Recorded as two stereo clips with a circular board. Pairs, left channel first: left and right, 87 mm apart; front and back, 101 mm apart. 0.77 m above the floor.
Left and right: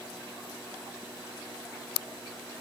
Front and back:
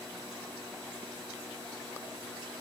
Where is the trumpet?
No trumpet in this recording.